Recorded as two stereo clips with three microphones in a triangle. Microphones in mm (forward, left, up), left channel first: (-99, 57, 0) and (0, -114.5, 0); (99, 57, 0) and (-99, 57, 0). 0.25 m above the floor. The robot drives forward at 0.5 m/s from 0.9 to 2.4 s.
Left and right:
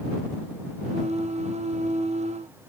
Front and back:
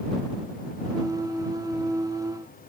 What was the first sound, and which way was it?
Only background noise.